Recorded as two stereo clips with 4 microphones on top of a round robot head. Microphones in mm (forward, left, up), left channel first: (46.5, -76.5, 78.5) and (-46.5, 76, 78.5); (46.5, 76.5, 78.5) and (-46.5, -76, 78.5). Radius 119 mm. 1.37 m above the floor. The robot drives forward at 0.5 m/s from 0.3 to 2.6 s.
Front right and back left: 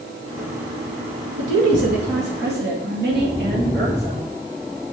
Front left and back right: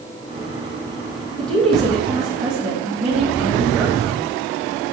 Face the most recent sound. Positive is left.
turn(degrees=155)